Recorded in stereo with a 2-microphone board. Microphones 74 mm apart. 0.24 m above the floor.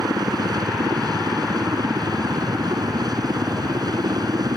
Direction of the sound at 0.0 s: 60° right (ahead or behind).